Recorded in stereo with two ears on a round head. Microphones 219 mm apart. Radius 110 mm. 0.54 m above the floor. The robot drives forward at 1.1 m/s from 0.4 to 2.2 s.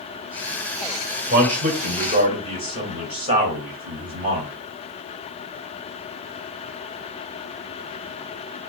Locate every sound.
1.3 s a man speaking: 40° right (ahead or behind), 1.3 m; by 4.5 s 25° right (ahead or behind), 2 m